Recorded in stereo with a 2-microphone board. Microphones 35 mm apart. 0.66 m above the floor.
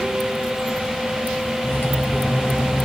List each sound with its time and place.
1.6 s cutlery clinking: 80° left, 2 m